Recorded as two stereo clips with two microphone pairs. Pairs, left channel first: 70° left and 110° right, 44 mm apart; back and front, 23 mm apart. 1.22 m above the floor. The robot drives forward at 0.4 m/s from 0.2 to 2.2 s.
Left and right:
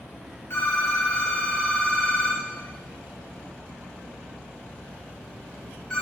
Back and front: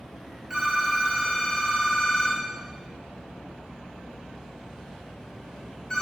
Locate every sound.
0.5 s a phone ringing: 75° left, 0.5 m; by 6.0 s 145° left, 0.8 m